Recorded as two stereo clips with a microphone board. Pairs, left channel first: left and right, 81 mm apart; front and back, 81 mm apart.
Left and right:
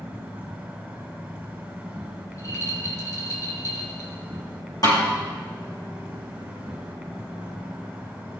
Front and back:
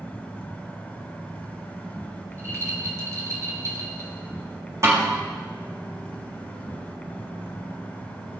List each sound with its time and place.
0.0 s an insect: 40° right, 1.6 m
2.3 s a rattle: 135° left, 3 m
4.8 s a snare drum: 130° left, 6 m